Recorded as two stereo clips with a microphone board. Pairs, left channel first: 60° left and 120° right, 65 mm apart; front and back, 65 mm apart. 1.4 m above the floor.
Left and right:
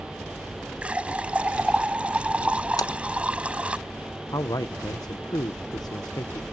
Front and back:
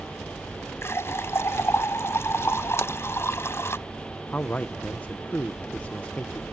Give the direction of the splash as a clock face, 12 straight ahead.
10 o'clock.